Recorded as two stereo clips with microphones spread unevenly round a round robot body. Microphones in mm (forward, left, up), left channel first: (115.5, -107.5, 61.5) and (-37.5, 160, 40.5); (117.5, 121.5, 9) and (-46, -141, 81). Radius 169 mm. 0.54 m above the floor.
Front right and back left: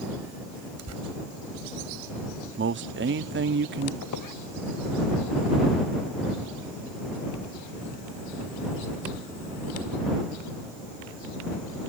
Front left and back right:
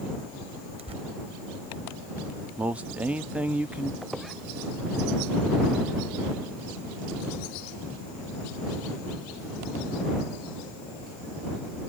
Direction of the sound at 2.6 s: 140° left.